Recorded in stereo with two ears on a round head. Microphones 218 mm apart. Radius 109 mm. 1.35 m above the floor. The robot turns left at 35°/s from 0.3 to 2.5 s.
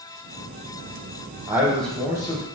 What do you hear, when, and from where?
1.5 s a man speaking: 170° right, 0.8 m; by 2.5 s 155° left, 0.8 m